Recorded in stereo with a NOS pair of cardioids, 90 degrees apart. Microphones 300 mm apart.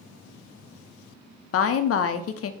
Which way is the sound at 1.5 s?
50° left.